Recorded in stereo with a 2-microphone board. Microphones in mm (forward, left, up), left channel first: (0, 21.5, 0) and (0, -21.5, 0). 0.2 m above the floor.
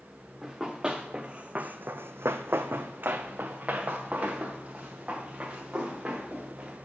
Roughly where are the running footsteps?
Centre.